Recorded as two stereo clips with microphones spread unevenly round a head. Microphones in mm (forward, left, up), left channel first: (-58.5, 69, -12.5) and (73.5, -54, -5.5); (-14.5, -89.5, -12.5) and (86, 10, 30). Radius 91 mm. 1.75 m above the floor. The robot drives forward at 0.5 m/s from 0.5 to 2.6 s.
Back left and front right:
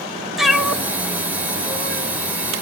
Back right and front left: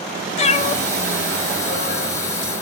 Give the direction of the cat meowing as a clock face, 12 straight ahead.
4 o'clock.